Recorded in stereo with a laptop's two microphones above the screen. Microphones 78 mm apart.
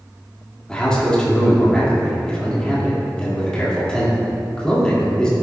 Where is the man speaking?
10° left (ahead or behind), 2 m.